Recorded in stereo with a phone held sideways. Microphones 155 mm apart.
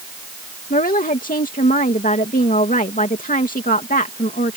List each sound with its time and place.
0.7 s a woman speaking: 60° left (ahead or behind)